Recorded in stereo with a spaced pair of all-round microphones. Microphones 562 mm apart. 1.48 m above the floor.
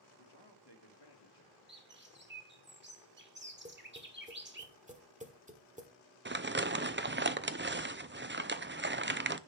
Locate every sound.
0.2 s a man speaking: 45° left (ahead or behind), 2.5 m
1.7 s a bird: 20° right (ahead or behind), 1.6 m
3.6 s tapping: 15° right (ahead or behind), 1.6 m
6.2 s crumpling: 20° right (ahead or behind), 0.5 m